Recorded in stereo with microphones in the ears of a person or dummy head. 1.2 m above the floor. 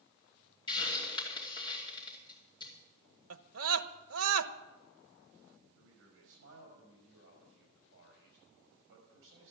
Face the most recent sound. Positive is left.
turn(degrees=-70)  # may be behind; listen again after turning